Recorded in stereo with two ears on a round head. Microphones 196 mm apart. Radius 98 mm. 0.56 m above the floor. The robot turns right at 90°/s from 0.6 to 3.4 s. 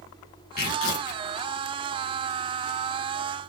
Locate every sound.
0.6 s tearing paper: 45° left, 1.4 m; by 1.2 s 100° left, 1.4 m